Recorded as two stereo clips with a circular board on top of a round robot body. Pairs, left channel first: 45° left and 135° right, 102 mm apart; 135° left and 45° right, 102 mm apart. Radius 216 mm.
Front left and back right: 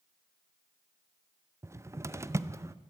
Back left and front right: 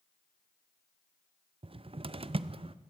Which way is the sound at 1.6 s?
75° right.